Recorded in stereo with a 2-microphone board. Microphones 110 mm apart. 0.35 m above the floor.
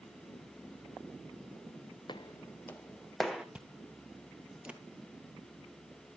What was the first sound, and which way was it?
Footsteps, 45° left (ahead or behind).